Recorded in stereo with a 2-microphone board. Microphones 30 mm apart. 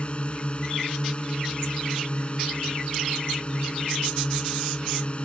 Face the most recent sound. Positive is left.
turn(degrees=40)  # may be behind; listen again after turning